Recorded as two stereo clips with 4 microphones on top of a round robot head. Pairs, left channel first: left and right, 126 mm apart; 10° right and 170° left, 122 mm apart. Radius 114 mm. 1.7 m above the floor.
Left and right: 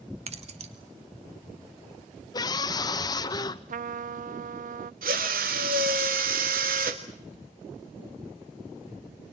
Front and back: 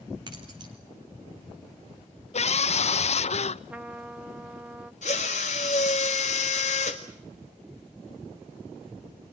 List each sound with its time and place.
0.3 s keys jangling: 125° right, 2.5 m
2.3 s a scream: 25° left, 1.0 m
3.7 s a trumpet: 105° right, 0.5 m
5.0 s a drill: 55° right, 1.6 m